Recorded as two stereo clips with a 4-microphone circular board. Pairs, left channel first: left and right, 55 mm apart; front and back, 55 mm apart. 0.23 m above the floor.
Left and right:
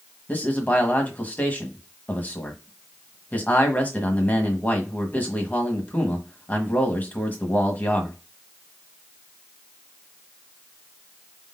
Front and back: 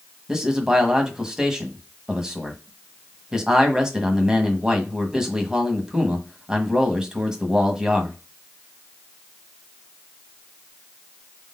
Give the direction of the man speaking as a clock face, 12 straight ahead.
8 o'clock.